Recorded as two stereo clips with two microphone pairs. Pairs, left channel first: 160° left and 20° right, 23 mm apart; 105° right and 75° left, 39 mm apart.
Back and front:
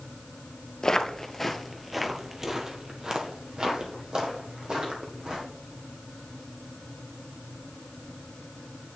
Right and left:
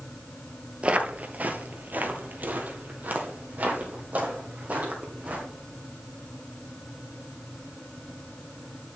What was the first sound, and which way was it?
Footsteps, 120° left.